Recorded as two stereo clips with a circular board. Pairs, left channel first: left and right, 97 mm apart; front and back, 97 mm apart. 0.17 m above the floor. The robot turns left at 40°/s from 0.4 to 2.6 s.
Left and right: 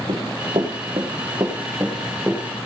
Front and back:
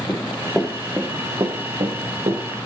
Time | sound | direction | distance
0.1 | running footsteps | 90° right | 2 m